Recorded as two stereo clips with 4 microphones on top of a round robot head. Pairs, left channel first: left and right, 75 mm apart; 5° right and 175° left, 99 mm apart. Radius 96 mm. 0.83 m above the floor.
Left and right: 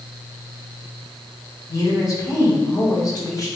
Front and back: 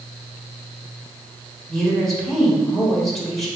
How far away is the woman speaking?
About 1.6 m.